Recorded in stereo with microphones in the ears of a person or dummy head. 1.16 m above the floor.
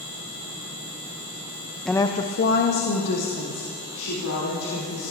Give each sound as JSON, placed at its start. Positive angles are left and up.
{"t": 1.9, "sound": "a woman speaking", "side_deg": -5, "distance_m": 0.6}